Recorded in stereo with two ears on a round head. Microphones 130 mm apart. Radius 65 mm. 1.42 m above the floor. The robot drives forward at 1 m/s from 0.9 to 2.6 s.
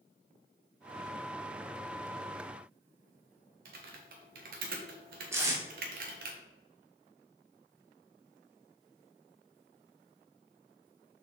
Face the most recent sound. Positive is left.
turn(degrees=-20)  # may be behind; listen again after turning